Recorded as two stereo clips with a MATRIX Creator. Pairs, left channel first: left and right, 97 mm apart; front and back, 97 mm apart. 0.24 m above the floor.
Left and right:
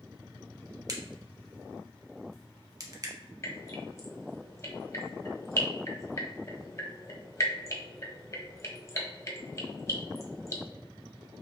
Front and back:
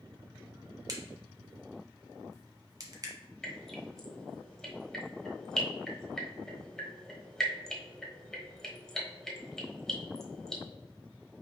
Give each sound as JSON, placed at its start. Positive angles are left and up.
{"t": 0.9, "sound": "a crack", "azimuth_deg": -135, "distance_m": 0.9}
{"t": 3.4, "sound": "dripping", "azimuth_deg": 80, "distance_m": 1.2}